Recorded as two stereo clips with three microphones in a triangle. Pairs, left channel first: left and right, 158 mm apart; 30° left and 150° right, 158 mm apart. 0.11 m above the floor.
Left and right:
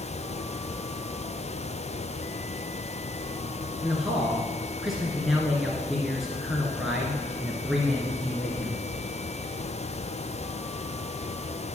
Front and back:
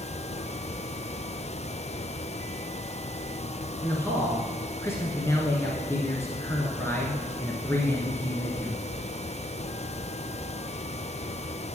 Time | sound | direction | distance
3.8 | a man speaking | 5° right | 1.3 m